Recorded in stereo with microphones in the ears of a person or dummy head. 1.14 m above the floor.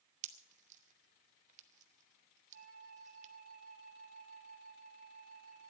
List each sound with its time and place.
0.2 s a pop: 45° right (ahead or behind), 1.0 m
2.5 s a flute: 55° right (ahead or behind), 2.5 m